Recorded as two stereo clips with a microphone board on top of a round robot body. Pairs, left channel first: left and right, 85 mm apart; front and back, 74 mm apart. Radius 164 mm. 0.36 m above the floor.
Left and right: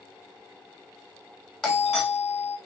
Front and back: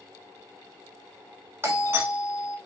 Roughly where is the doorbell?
Behind.